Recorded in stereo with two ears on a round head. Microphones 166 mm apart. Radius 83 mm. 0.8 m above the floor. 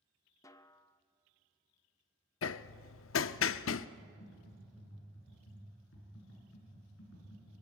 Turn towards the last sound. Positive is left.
turn(degrees=70)  # may be behind; listen again after turning